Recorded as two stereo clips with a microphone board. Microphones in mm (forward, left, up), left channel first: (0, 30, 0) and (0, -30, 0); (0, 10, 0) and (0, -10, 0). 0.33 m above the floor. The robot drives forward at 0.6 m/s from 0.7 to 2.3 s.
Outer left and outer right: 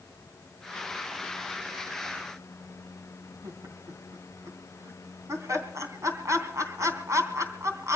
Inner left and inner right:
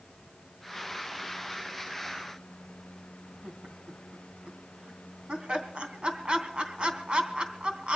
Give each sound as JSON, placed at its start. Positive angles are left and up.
{"t": 3.4, "sound": "laughter", "side_deg": -60, "distance_m": 3.0}